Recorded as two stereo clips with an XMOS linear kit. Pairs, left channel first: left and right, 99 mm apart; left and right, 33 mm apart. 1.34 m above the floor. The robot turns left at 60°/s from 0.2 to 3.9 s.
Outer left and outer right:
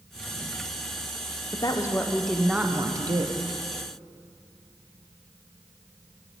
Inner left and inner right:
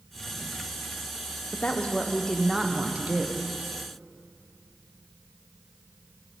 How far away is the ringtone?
I don't hear a ringtone.